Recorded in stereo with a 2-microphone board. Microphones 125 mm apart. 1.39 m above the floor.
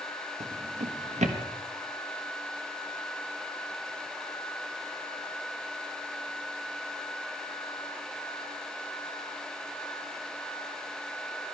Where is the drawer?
70° right (ahead or behind), 1.2 m.